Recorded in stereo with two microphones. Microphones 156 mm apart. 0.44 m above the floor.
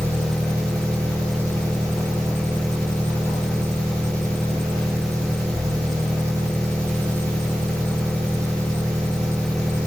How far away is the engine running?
About 3 m.